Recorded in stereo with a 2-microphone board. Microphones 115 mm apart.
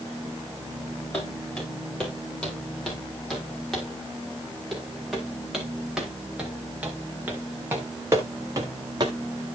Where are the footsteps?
10° left (ahead or behind), 9.5 m; by 9.2 s 40° right (ahead or behind), 3 m.